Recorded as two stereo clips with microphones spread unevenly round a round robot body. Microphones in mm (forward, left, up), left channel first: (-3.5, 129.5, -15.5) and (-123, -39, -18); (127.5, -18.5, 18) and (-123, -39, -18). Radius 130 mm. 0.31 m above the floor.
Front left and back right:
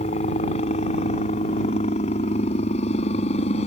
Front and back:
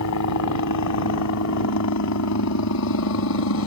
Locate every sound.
0.0 s a helicopter: 5° right